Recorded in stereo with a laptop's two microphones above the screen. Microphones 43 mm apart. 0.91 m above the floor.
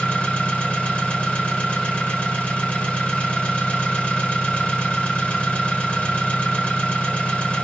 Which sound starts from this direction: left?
An engine running, at 0.0 s.